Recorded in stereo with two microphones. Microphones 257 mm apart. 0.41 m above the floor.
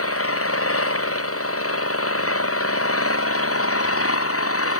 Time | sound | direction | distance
0.0 | an engine running | 60° left (ahead or behind) | ?